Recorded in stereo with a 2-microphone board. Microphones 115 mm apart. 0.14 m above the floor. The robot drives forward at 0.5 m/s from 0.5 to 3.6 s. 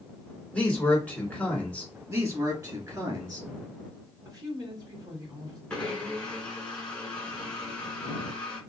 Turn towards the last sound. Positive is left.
turn(degrees=10)  # may be behind; listen again after turning